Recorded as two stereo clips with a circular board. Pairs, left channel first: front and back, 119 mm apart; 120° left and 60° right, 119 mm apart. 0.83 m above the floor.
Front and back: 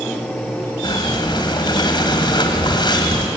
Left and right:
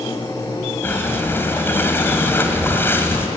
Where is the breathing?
50° left, 2.5 m.